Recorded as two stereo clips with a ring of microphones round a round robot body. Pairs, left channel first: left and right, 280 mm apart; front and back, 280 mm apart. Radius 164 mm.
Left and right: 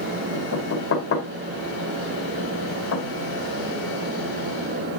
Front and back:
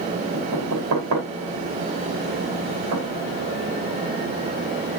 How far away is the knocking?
About 6 m.